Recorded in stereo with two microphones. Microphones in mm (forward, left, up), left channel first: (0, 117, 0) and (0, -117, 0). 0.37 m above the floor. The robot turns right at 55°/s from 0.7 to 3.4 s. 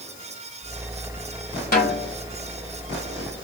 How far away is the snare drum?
About 1.5 m.